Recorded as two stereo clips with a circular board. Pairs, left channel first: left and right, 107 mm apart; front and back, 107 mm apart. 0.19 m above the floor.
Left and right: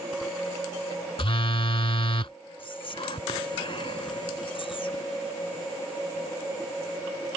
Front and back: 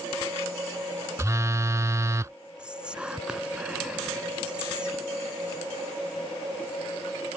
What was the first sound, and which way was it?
A phone buzzing, 120° left.